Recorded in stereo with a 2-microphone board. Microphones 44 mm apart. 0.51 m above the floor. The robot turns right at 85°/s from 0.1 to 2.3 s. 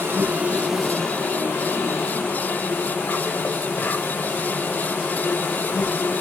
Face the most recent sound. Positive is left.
turn(degrees=125)